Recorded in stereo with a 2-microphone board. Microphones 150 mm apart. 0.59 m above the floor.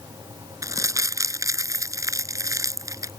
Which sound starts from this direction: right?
Crumpling, at 0.6 s.